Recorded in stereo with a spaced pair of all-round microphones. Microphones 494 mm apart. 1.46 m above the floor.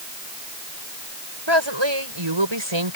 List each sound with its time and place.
1.5 s a woman speaking: 60° right (ahead or behind); by 3.0 s 70° right (ahead or behind)